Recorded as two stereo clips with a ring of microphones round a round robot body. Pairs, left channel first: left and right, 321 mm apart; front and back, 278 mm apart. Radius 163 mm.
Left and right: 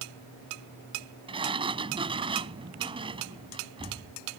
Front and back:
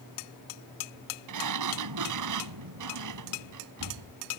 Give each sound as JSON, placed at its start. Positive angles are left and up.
{"t": 1.3, "sound": "a sliding door", "azimuth_deg": -165}